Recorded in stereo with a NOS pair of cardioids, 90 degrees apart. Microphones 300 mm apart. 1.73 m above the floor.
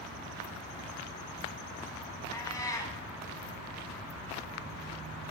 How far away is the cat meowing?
About 5 m.